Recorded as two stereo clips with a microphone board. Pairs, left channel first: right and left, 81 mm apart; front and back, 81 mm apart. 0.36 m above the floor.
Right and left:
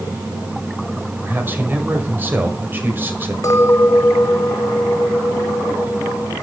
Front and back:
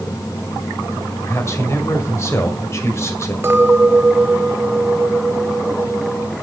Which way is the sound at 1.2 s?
35° left.